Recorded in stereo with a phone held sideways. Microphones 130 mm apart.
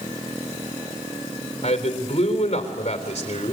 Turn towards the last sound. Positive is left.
turn(degrees=55)  # may be behind; listen again after turning